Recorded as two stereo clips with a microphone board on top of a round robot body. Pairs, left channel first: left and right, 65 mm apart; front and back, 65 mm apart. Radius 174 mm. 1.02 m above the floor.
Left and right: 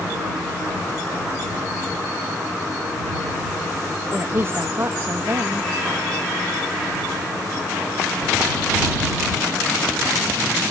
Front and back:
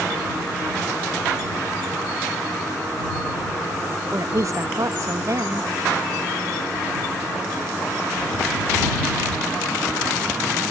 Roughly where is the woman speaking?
Behind right.